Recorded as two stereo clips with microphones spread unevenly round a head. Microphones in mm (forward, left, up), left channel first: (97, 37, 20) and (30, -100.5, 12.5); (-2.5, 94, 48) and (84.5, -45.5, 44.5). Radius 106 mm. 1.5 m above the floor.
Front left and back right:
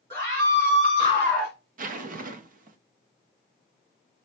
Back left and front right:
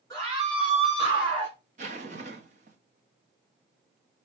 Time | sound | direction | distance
0.1 | a scream | 165° right | 4 m
1.8 | a zipper | 110° right | 0.6 m